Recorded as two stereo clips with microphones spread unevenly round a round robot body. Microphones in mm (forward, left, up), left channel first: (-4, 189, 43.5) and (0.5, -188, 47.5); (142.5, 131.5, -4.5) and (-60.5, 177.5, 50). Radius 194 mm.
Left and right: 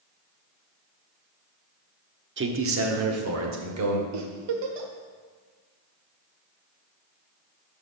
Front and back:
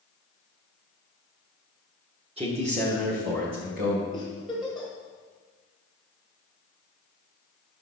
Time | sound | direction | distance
2.4 | a man speaking | 125° right | 1.0 m
4.1 | a giggle | 95° right | 1.3 m